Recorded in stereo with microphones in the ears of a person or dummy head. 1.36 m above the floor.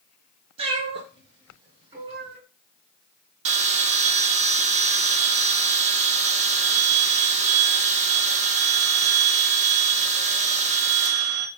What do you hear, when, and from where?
0.6 s a cat meowing: 40° right (ahead or behind), 3.5 m; by 2.4 s 35° right (ahead or behind), 2.5 m
3.5 s a bell: 50° right (ahead or behind), 1.4 m